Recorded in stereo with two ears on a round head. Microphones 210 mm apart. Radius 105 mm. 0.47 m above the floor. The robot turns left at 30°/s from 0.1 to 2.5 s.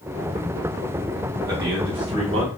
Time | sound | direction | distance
1.5 | a man speaking | 15° right (ahead or behind) | 1.1 m